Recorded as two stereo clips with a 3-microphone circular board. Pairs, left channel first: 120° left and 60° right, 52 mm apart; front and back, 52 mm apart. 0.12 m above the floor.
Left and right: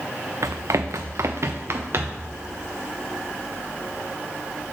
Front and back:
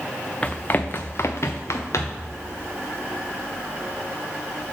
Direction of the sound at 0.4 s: 70° right.